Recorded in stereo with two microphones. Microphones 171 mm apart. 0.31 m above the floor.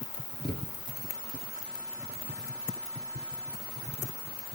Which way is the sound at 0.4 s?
70° right (ahead or behind).